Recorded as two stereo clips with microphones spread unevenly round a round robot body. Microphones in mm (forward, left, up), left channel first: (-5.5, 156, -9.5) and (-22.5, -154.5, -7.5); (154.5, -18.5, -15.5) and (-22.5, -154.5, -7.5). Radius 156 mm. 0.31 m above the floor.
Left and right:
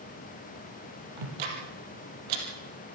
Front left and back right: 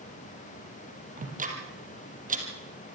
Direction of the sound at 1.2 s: 85° right.